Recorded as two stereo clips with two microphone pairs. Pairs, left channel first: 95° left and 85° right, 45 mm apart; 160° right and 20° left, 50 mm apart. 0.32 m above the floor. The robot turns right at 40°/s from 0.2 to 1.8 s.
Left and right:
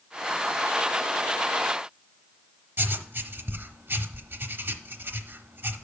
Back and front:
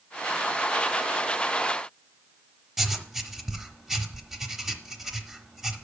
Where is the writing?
65° right, 0.8 m.